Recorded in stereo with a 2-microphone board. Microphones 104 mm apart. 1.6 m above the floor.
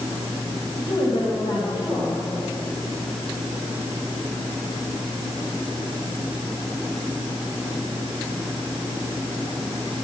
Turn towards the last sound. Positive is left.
turn(degrees=50)  # may be behind; listen again after turning